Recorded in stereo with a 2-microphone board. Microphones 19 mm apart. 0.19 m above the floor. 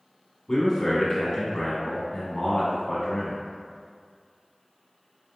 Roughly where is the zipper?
No zipper in this recording.